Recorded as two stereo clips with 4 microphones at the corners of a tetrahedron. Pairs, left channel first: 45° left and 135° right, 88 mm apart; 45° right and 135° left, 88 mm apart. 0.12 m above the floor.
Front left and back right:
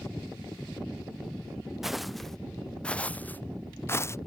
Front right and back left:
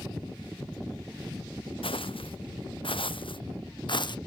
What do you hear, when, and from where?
1.8 s footsteps: 50° right; by 4.2 s 15° right